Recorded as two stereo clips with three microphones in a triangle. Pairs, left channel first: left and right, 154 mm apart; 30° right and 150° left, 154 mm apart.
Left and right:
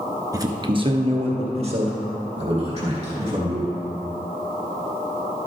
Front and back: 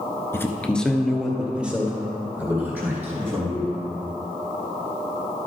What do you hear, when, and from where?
0.3 s a man speaking: 75° right, 1.1 m; by 3.7 s 135° right, 4.5 m